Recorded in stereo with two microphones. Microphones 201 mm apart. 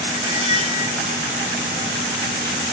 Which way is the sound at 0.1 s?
30° right (ahead or behind).